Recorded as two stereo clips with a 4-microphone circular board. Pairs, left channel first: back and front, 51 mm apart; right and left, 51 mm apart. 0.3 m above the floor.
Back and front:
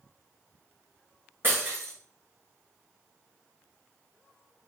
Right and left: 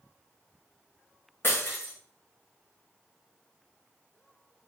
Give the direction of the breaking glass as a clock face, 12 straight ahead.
2 o'clock.